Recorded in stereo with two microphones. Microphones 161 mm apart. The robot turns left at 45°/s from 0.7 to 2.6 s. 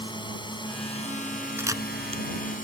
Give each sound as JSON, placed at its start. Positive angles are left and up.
{"t": 0.0, "sound": "a drone", "azimuth_deg": 150}
{"t": 1.6, "sound": "a camera shutter", "side_deg": -15}